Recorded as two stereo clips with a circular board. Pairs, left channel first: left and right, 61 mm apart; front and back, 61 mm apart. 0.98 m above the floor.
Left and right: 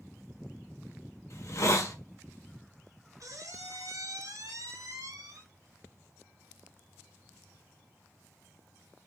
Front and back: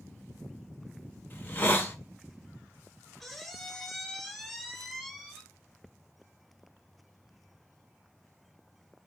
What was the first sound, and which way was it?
A hiss, 55° left.